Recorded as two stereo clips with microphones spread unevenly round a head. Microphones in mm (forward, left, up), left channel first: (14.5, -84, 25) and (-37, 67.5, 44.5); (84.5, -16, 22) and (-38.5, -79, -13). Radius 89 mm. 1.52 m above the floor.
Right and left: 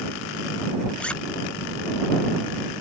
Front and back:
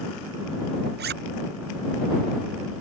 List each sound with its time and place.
1.0 s a zipper: 155° right